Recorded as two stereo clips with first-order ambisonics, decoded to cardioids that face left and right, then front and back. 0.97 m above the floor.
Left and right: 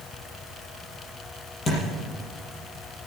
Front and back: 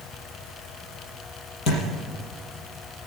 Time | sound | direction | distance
1.7 | a thud | 30° left | 5.5 m